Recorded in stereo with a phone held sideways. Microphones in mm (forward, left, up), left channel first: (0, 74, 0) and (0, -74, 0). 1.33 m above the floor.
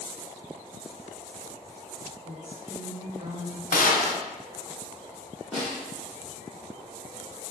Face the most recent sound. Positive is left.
turn(degrees=0)  # may be behind; listen again after turning